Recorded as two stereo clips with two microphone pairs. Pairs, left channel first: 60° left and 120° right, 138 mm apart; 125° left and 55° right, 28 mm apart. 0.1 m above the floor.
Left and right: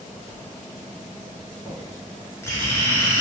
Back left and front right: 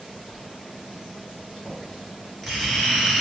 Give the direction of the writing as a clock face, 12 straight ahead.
10 o'clock.